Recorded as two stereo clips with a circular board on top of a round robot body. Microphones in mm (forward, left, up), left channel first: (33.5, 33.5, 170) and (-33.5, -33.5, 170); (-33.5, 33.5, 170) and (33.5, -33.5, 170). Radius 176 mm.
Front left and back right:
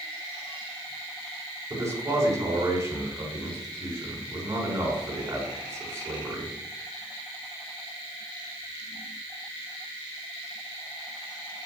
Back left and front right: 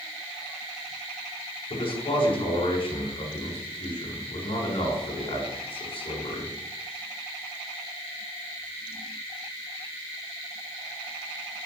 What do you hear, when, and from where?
1.7 s a man speaking: 165° left, 5 m